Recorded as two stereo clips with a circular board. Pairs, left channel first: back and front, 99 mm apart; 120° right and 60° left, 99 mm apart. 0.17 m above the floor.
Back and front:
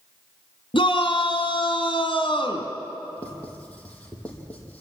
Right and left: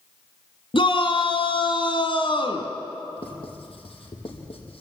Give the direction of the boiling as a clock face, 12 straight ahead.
No boiling in this recording.